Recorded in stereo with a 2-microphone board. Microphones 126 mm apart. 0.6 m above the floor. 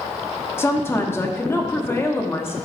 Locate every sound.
0.6 s a woman speaking: 20° left (ahead or behind), 1.2 m